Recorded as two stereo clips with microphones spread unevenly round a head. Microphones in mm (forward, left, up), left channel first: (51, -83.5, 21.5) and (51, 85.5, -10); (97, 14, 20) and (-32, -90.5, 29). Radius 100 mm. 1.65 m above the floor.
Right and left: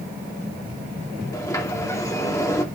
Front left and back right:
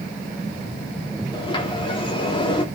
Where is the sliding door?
20° right, 2.5 m.